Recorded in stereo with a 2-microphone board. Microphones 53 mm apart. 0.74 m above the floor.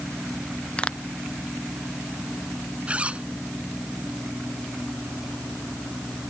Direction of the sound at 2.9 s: 25° right (ahead or behind).